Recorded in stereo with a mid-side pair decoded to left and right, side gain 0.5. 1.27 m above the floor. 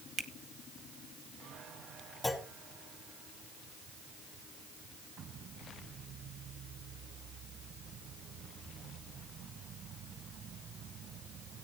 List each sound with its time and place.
0.2 s a finger snap: 40° right, 2 m
2.2 s a clunk: 15° left, 3.5 m